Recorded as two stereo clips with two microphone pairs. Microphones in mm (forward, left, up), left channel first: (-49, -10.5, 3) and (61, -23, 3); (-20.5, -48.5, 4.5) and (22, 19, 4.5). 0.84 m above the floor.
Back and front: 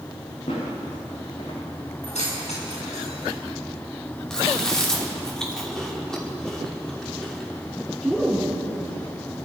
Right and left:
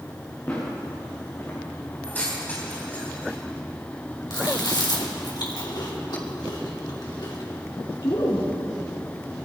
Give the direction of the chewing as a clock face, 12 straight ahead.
3 o'clock.